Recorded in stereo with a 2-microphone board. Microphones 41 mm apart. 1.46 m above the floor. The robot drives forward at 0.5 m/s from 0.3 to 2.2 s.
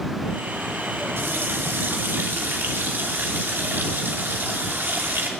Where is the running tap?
80° right, 2.5 m; by 5.3 s 70° right (ahead or behind), 2.5 m.